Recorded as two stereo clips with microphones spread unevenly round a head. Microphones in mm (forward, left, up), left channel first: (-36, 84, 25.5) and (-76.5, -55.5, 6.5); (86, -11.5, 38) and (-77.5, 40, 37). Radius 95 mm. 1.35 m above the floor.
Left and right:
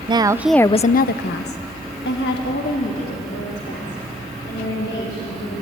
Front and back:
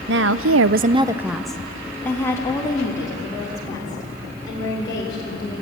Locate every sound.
0.1 s a woman speaking: 165° right, 0.8 m; by 5.6 s 50° left, 6 m